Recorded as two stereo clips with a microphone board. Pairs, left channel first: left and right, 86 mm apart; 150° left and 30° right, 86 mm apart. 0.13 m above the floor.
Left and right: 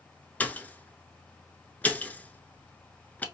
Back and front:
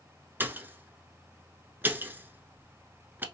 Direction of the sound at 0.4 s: 25° left.